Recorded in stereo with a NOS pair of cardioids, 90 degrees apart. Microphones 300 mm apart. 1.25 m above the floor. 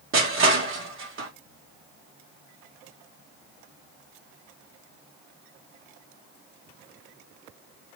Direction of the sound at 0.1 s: 45° right.